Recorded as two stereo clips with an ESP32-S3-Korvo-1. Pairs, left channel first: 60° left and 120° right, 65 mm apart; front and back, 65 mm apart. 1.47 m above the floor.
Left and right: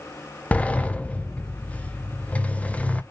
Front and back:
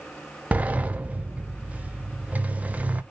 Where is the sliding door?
125° left, 0.6 m.